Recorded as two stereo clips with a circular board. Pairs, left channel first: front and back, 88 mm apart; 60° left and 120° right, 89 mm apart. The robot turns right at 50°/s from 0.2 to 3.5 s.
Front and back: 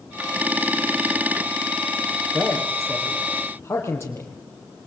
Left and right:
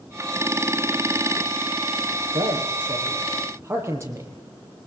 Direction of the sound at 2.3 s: 120° right.